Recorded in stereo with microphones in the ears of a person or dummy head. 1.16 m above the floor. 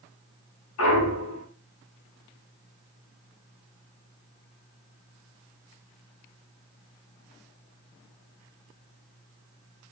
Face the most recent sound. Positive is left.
turn(degrees=80)